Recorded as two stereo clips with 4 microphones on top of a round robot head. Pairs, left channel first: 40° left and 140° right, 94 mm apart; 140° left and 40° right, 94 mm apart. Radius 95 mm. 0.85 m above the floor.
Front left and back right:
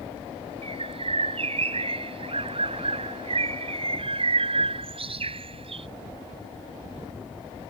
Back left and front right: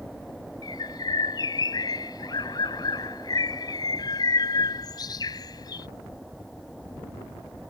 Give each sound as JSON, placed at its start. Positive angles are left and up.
{"t": 0.6, "sound": "a bird", "azimuth_deg": -170}